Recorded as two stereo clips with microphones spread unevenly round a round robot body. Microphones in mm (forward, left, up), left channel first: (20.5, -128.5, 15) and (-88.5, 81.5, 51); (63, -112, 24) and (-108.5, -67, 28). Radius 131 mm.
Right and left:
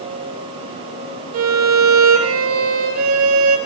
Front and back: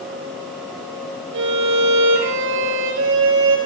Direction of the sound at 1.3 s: 140° left.